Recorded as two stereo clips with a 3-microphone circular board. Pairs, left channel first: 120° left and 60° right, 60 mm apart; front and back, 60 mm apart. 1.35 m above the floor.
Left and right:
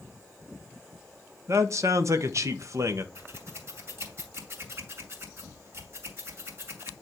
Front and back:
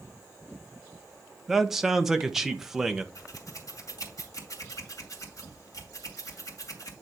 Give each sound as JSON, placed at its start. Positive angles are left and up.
{"t": 1.5, "sound": "a man speaking", "azimuth_deg": -95, "distance_m": 1.0}
{"t": 3.1, "sound": "scissors", "azimuth_deg": -15, "distance_m": 2.5}